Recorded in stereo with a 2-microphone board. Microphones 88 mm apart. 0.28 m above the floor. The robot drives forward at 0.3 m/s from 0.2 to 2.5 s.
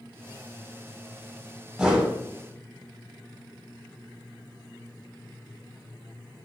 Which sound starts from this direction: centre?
A whoosh, at 1.8 s.